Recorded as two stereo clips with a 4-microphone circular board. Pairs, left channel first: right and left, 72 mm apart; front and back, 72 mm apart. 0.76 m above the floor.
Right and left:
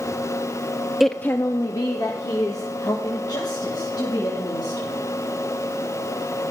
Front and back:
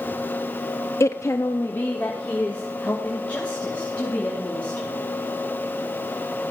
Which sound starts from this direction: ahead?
A woman speaking, at 1.0 s.